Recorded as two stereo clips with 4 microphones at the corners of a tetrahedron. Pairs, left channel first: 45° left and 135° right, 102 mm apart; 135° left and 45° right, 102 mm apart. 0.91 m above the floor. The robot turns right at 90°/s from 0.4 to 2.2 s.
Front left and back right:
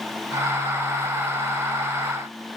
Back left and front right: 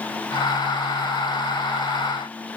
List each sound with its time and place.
Only background noise.